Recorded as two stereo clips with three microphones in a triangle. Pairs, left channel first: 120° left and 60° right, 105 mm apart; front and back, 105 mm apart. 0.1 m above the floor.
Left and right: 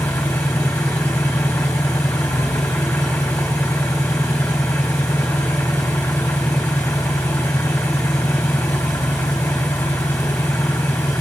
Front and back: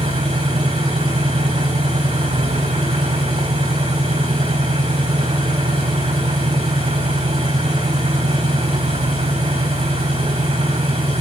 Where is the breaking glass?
I don't hear breaking glass.